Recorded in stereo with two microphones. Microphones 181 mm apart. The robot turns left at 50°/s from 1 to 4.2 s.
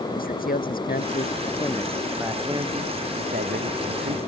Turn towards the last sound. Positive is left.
turn(degrees=-105)